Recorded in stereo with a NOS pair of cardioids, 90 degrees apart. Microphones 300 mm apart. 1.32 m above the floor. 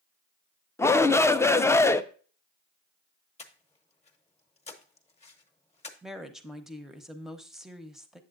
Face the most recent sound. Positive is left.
turn(degrees=0)